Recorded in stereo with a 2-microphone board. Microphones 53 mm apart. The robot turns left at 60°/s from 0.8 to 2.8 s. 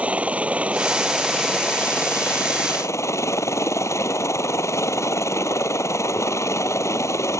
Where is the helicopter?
150° right; by 7.4 s 90° left.